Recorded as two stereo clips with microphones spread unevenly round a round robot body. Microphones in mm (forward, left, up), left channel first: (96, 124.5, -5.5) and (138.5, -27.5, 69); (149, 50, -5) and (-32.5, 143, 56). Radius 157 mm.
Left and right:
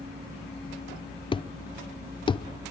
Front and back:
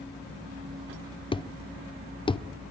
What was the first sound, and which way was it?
A thud, 40° left.